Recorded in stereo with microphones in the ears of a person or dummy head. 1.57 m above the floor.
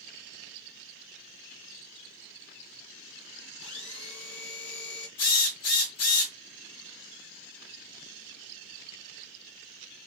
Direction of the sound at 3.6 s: 70° left (ahead or behind).